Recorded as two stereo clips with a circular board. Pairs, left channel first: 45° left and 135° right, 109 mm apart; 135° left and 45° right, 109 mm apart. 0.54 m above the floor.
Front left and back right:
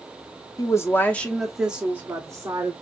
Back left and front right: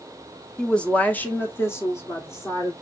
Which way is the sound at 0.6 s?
60° left.